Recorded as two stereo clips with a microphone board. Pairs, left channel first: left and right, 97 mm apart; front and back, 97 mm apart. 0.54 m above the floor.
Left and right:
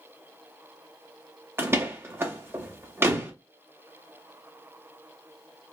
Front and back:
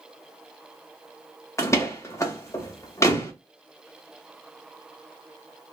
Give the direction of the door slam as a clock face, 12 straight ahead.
1 o'clock.